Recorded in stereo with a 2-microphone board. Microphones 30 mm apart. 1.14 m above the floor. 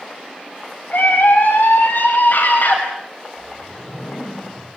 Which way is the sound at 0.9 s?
80° left.